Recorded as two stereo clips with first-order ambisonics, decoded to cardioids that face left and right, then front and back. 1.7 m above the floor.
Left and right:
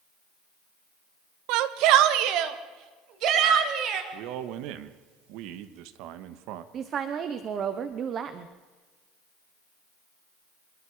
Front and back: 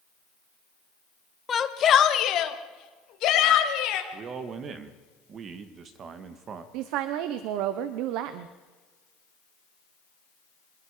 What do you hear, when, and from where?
1.5 s a shout: 70° right, 1.3 m; by 4.0 s 40° right, 3.5 m
4.1 s a man speaking: 120° right, 1.7 m
6.7 s a woman speaking: 150° right, 1.0 m